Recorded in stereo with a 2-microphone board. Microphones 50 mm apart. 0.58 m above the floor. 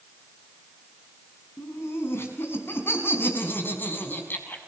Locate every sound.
1.6 s laughter: 60° left (ahead or behind), 6 m; by 4.6 s 40° left (ahead or behind), 5.5 m